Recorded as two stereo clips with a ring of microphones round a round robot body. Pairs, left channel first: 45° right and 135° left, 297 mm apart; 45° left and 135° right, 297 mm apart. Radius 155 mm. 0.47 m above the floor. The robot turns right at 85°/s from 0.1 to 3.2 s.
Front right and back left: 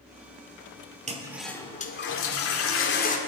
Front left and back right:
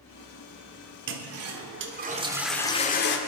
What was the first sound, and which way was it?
A toilet flushing, 165° right.